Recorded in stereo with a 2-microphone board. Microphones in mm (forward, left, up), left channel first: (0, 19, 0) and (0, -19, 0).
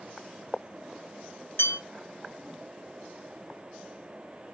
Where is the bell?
70° left (ahead or behind), 1.3 m.